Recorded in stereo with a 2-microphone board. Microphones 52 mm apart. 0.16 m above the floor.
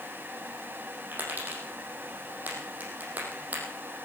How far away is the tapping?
About 5 m.